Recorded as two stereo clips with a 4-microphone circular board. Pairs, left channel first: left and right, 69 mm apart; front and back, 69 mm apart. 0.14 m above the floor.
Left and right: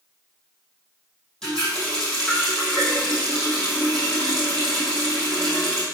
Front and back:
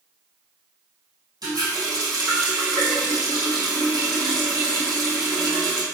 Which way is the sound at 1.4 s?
170° left.